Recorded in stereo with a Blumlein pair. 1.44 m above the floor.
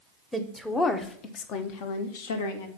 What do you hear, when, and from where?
0.3 s a woman speaking: 5° right, 0.9 m; by 2.7 s 65° left, 1.4 m